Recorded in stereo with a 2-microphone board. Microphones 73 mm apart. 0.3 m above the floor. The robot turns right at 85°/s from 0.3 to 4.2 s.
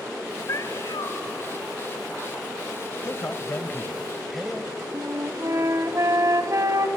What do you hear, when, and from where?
0.5 s a cat meowing: 40° left, 1.4 m; by 1.2 s 100° left, 1.4 m
3.0 s a man speaking: 85° left, 1.1 m; by 4.8 s 175° right, 1.1 m
4.9 s a flute: 45° right (ahead or behind), 1.2 m